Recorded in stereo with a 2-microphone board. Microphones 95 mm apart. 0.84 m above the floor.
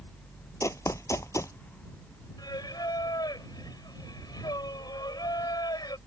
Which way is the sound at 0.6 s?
35° left (ahead or behind).